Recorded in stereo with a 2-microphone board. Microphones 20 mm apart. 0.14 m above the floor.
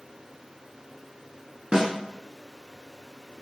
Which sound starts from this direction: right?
A snare drum, at 1.7 s.